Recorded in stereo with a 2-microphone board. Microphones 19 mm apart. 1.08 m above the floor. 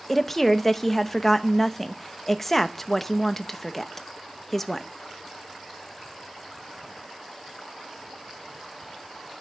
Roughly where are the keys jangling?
No keys jangling in this recording.